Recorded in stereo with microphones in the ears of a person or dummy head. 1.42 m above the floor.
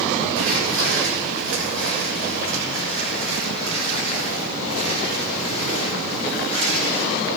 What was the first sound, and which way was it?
Footsteps, 75° right (ahead or behind).